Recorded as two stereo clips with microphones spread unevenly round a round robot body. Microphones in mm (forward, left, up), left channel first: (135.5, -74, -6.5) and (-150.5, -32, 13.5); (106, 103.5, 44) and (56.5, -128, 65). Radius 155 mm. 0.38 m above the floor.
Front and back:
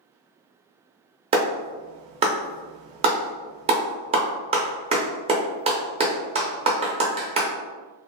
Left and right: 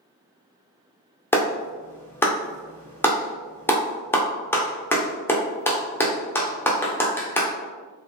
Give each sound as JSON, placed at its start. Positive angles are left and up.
{"t": 1.3, "sound": "a clap", "azimuth_deg": 125, "distance_m": 0.6}